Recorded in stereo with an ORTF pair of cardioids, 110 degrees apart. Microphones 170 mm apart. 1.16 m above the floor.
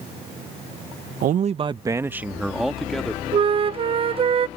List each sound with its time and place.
1.2 s a man speaking: 60° right; by 3.2 s 5° left
3.3 s a flute: 35° right